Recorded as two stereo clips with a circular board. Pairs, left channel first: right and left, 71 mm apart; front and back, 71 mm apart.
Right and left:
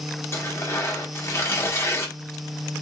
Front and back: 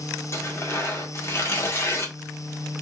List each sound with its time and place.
0.3 s tearing paper: 45° right, 1.3 m